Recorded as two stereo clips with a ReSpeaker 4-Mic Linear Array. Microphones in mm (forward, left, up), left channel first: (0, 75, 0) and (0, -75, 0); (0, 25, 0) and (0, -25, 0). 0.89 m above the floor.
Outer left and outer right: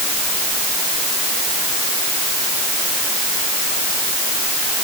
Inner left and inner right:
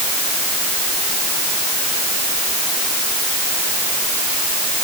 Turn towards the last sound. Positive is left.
No sound to turn to.